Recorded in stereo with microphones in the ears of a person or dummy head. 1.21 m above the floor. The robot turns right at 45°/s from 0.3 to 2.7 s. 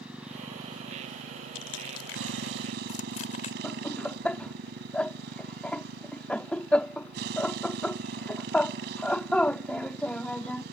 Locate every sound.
0.0 s a motorcycle: 175° right; by 10.7 s 65° right
1.6 s crushing: 80° left; by 3.5 s 50° left (ahead or behind)
3.6 s laughter: 10° left (ahead or behind)